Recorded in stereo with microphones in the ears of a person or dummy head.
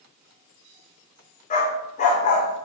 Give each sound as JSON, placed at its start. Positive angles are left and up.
{"t": 1.5, "sound": "a dog barking", "side_deg": 40, "distance_m": 2.0}